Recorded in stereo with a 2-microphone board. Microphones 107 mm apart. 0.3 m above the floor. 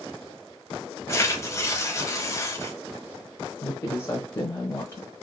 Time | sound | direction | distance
1.1 | tearing paper | 30° left (ahead or behind) | 0.8 m
3.6 | a woman speaking | 25° left (ahead or behind) | 1.1 m